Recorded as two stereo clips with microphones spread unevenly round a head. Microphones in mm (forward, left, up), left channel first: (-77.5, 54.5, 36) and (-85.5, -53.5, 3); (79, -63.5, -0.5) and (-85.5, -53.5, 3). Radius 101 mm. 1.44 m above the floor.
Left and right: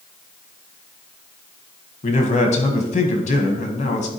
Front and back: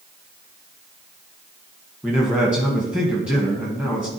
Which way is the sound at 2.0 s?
90° left.